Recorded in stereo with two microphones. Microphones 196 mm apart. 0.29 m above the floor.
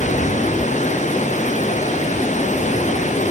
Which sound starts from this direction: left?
Running water, at 0.0 s.